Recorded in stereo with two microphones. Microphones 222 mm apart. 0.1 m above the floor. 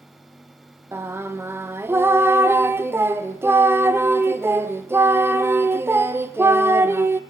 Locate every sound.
0.9 s singing: 10° right (ahead or behind), 1.0 m